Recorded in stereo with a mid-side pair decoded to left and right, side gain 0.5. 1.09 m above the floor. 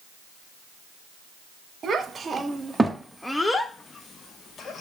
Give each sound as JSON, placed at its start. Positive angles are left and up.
{"t": 1.8, "sound": "a child speaking", "azimuth_deg": -40, "distance_m": 0.9}